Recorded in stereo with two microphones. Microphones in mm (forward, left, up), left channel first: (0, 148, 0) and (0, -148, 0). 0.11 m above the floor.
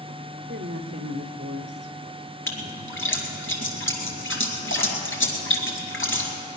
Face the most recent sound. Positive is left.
turn(degrees=45)  # may be behind; listen again after turning